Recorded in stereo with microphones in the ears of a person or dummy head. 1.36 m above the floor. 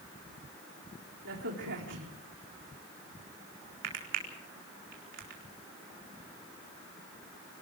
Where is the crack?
65° right (ahead or behind), 4 m.